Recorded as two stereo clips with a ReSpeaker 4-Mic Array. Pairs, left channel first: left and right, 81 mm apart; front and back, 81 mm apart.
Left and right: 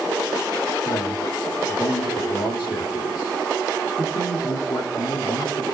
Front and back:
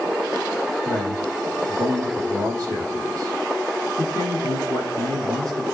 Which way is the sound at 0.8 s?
130° left.